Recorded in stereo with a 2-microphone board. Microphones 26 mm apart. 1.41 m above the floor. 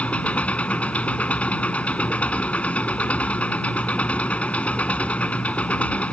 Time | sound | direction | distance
0.0 | an engine running | 60° left (ahead or behind) | ?